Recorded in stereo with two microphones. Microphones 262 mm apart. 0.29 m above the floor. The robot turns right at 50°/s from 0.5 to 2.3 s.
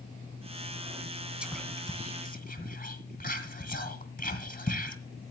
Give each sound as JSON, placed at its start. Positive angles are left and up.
{"t": 1.4, "sound": "whispering", "side_deg": -5, "distance_m": 2.0}